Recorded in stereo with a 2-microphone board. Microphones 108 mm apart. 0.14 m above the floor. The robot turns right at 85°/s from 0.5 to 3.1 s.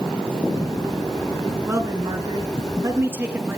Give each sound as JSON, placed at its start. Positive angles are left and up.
{"t": 1.7, "sound": "a man speaking", "azimuth_deg": -150, "distance_m": 1.9}